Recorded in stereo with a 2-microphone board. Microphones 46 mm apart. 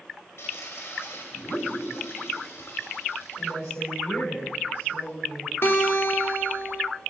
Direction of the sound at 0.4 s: 65° left (ahead or behind).